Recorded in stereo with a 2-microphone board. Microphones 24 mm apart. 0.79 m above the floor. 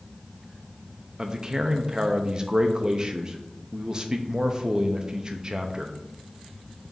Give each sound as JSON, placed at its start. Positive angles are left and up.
{"t": 1.2, "sound": "a man speaking", "side_deg": -30, "distance_m": 0.6}